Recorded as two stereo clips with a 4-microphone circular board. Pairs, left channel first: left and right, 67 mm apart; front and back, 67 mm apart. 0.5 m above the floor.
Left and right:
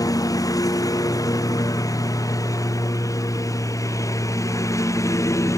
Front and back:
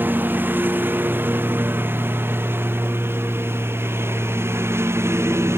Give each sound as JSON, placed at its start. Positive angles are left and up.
{"t": 0.0, "sound": "a lawn mower", "azimuth_deg": 115}